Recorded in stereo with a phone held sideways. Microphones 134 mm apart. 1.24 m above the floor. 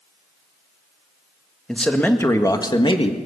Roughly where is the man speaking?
Centre.